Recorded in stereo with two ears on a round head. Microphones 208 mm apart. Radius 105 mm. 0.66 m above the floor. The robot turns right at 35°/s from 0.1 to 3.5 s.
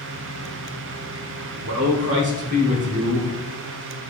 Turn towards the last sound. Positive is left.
turn(degrees=-10)